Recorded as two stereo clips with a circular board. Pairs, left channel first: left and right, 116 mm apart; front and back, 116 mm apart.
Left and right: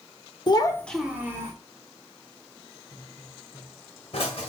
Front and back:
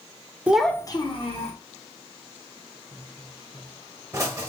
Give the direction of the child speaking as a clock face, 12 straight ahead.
8 o'clock.